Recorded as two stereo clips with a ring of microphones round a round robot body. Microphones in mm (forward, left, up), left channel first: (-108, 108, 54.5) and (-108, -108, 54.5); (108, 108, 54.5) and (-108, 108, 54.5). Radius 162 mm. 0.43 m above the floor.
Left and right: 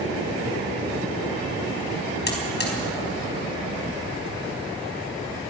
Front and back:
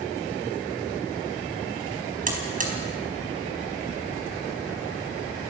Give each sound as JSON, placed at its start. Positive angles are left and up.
{"t": 2.3, "sound": "a buzzer", "azimuth_deg": 130, "distance_m": 4.5}